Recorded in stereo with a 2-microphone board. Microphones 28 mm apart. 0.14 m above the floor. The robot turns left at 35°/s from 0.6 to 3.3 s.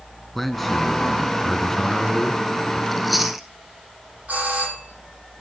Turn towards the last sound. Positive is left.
turn(degrees=-65)  # may be behind; listen again after turning